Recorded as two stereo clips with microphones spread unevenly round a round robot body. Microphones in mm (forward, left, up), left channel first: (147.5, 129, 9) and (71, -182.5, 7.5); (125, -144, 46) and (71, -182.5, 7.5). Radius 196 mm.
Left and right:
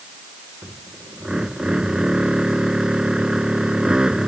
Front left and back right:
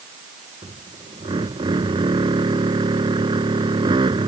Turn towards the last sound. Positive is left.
turn(degrees=170)